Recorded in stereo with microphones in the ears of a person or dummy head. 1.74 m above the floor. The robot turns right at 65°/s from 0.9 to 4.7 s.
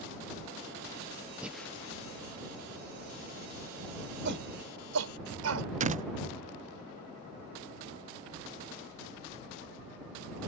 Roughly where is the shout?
Right.